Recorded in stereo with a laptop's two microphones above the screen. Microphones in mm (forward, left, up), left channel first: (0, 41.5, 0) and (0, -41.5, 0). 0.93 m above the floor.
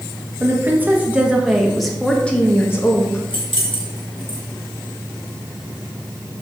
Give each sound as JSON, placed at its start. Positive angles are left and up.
{"t": 0.4, "sound": "a woman speaking", "side_deg": -25, "distance_m": 1.5}
{"t": 3.3, "sound": "keys jangling", "side_deg": 85, "distance_m": 1.6}